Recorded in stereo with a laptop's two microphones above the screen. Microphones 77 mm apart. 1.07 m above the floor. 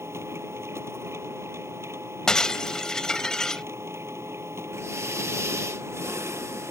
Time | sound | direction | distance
0.0 | a machine running | 40° right (ahead or behind) | ?
2.3 | breaking glass | 10° left (ahead or behind) | ?
4.7 | breathing | 40° right (ahead or behind) | ?